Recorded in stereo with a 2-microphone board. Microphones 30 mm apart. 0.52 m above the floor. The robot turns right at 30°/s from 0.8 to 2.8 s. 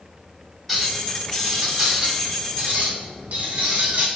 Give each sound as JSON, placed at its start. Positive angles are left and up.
{"t": 0.7, "sound": "a clink", "azimuth_deg": 175, "distance_m": 1.3}